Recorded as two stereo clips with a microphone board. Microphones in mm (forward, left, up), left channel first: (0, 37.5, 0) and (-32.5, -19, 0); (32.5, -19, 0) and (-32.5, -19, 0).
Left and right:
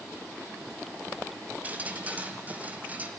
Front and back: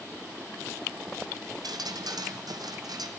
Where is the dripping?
175° left, 1.9 m.